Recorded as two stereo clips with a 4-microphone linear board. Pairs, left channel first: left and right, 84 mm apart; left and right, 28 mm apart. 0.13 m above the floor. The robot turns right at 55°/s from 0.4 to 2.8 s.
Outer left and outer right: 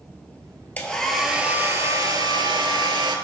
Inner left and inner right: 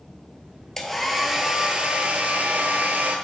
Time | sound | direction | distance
0.8 | a hair dryer | 160° left | 0.6 m